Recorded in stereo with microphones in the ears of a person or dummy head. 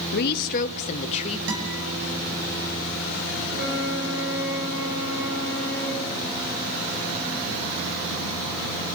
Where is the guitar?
70° right (ahead or behind), 7 m.